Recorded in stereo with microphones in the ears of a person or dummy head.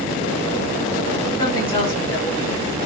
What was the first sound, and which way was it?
A woman speaking, 25° left (ahead or behind).